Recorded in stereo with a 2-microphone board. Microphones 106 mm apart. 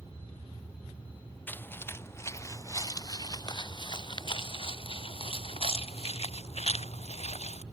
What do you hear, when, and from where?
1.5 s footsteps: 15° left (ahead or behind); by 7.6 s 80° left